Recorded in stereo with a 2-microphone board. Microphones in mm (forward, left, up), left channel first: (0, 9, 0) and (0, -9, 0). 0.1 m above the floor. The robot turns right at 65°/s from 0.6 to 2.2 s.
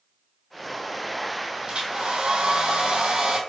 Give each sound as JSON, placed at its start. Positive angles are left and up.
{"t": 1.7, "sound": "a hair dryer", "azimuth_deg": -120, "distance_m": 0.8}